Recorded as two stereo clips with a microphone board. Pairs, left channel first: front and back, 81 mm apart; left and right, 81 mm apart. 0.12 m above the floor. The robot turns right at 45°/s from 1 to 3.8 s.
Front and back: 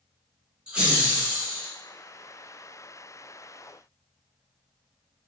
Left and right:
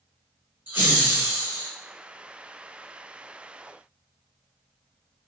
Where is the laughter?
120° right, 1.4 m; by 1.7 s 90° right, 1.4 m.